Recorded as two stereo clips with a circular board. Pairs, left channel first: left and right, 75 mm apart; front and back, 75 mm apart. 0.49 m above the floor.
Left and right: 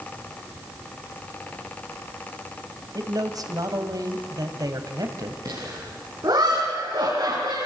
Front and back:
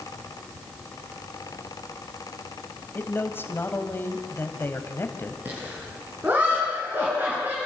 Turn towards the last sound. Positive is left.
turn(degrees=-120)